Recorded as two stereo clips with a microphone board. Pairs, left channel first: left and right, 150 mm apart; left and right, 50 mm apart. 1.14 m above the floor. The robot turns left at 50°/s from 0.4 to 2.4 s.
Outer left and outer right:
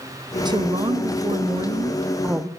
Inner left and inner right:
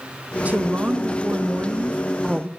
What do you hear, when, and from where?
0.5 s a woman speaking: 60° right, 0.5 m; by 2.5 s 160° right, 0.5 m